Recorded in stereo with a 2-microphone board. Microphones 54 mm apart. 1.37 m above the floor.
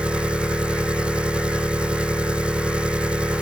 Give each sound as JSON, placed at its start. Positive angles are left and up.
{"t": 0.0, "sound": "an engine running", "side_deg": -20}